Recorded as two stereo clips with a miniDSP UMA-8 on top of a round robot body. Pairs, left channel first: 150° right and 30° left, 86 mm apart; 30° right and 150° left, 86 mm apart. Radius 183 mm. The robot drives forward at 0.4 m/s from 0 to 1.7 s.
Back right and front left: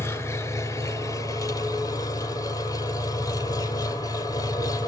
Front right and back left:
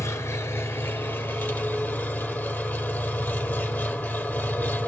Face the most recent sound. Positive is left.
turn(degrees=-105)